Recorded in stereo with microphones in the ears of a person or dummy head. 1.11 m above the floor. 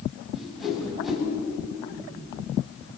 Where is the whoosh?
Centre (ahead or behind), 8.5 m.